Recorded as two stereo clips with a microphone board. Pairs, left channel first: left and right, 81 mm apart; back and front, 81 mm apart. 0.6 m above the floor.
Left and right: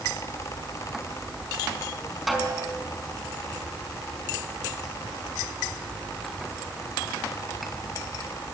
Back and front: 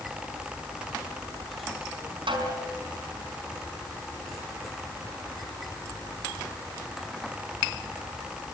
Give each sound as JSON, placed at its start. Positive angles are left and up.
{"t": 2.3, "sound": "a snare drum", "azimuth_deg": 0, "distance_m": 5.0}